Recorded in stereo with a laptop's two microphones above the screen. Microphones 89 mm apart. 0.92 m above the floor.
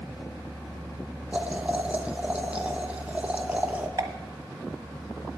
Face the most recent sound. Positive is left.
turn(degrees=-40)  # may be behind; listen again after turning